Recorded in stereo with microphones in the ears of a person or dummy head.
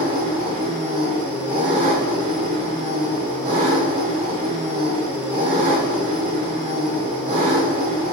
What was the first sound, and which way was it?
An engine running, 35° right (ahead or behind).